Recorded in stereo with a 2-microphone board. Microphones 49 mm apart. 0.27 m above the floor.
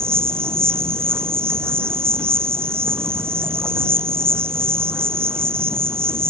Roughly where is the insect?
Right.